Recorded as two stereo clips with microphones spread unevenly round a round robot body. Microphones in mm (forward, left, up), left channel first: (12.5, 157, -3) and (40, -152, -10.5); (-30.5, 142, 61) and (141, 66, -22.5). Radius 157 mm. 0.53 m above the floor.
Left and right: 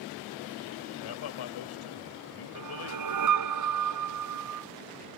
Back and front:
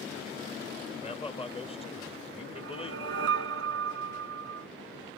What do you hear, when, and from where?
1.0 s a man speaking: 85° left
2.5 s a whoosh: 55° right